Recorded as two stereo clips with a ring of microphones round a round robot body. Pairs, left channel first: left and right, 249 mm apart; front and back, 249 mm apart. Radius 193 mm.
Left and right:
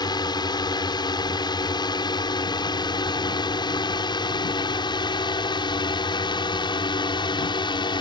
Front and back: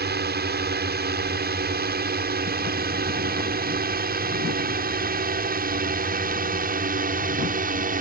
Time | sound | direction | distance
0.0 | a drone | 155° left | ?